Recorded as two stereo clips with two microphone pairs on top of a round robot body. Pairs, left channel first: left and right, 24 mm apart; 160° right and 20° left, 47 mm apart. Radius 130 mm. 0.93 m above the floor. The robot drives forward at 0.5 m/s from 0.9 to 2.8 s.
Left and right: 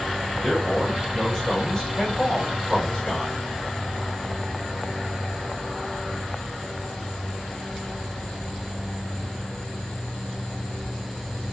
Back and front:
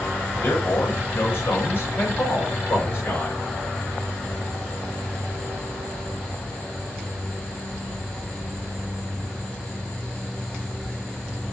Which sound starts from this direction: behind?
A man speaking, at 0.4 s.